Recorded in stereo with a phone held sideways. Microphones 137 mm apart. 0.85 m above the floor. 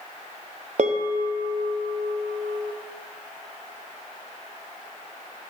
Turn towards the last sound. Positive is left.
turn(degrees=-60)  # may be behind; listen again after turning